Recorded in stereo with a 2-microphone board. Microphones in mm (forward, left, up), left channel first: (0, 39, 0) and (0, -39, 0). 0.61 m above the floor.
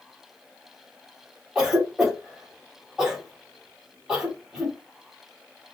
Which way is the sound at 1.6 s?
10° right (ahead or behind).